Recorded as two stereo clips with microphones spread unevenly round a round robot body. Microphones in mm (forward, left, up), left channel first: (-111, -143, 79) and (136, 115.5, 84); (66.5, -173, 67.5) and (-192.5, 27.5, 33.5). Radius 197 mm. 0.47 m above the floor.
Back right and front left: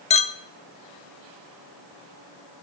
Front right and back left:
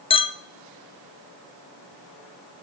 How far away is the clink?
About 0.6 m.